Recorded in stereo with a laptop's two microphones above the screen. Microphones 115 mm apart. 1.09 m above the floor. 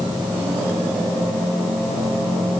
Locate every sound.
Only background noise.